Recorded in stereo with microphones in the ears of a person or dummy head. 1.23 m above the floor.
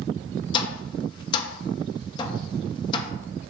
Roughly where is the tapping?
Left.